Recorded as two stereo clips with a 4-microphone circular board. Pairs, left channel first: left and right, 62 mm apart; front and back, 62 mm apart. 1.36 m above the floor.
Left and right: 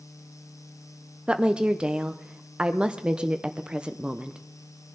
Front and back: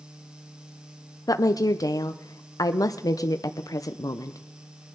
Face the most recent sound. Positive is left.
turn(degrees=-15)